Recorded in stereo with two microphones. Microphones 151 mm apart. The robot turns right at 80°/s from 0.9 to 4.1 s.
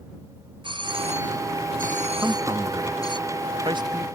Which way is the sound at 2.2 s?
10° right (ahead or behind).